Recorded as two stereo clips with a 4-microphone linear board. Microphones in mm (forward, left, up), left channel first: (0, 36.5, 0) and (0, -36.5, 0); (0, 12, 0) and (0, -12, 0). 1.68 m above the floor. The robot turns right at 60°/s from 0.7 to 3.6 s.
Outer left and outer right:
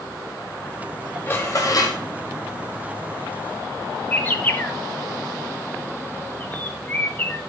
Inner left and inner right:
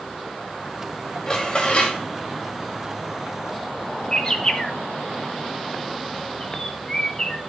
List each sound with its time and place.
1.3 s dishes clattering: 30° left, 2 m; by 2.0 s 75° left, 2 m
4.1 s a bird: 25° left (ahead or behind), 1.2 m